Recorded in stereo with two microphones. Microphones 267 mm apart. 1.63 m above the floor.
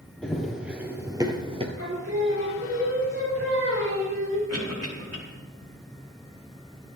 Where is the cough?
70° right (ahead or behind), 4.5 m.